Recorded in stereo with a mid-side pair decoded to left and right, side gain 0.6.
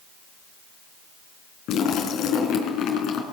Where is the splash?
60° left, 4.5 m.